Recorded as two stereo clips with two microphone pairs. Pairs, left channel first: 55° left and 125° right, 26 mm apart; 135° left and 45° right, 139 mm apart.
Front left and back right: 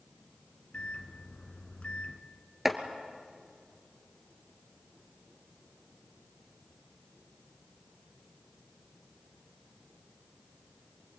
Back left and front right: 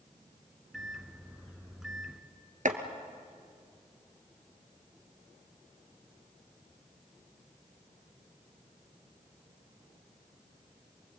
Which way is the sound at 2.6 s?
50° right.